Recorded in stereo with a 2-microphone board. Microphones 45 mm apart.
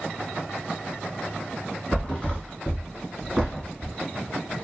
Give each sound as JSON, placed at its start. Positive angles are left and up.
{"t": 1.9, "sound": "a thud", "side_deg": 20, "distance_m": 1.3}